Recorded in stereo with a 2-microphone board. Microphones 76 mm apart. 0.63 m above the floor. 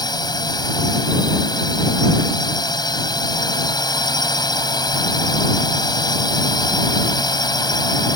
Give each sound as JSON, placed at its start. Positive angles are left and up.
{"t": 0.0, "sound": "a drone", "side_deg": 65}